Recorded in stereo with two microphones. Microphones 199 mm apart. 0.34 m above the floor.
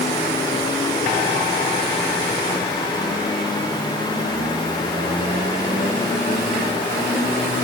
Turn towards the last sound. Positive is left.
No sound to turn to.